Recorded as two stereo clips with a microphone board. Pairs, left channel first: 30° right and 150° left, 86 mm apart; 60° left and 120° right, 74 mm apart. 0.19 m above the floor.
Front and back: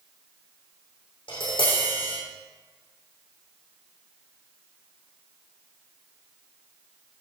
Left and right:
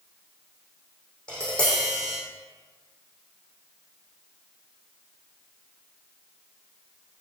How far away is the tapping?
About 6 m.